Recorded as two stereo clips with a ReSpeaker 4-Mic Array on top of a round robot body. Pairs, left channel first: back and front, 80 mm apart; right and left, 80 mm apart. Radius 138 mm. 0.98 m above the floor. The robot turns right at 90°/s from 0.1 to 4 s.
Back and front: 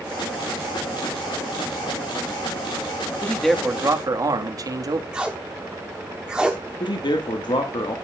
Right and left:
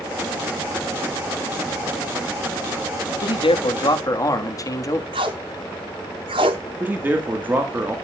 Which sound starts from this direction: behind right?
A man speaking, at 3.2 s.